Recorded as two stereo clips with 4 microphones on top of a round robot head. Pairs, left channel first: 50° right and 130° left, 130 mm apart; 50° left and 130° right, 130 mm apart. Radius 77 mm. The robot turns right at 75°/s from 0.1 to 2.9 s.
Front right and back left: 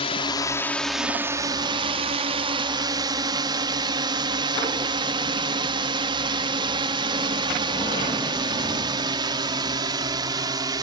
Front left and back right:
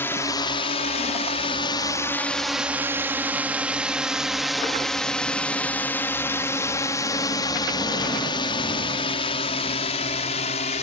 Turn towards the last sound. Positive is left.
turn(degrees=70)